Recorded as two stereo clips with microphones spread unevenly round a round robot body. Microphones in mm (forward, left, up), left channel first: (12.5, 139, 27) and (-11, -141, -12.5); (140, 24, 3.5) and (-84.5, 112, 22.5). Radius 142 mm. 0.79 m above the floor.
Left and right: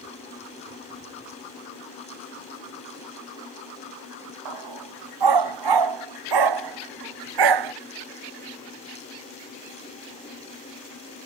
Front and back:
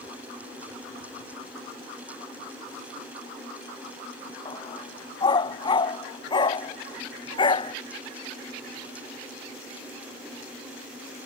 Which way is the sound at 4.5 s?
100° right.